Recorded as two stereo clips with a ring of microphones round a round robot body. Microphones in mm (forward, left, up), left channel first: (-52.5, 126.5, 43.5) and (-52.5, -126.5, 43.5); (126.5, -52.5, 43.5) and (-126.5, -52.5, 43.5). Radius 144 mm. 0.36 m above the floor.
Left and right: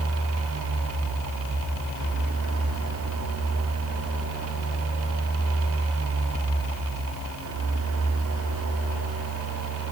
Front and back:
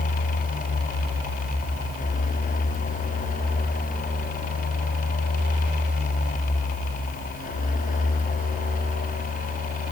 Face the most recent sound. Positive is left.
No sound to turn to.